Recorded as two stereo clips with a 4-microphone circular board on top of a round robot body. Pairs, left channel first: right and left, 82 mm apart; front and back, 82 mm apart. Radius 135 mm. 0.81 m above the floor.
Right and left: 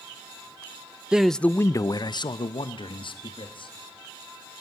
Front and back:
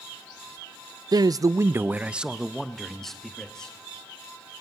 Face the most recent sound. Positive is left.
turn(degrees=-80)